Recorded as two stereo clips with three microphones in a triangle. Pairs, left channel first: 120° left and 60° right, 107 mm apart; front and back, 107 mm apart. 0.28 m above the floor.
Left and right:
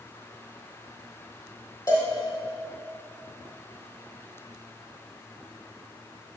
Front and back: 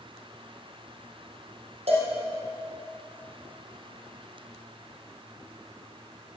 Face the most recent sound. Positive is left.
turn(degrees=180)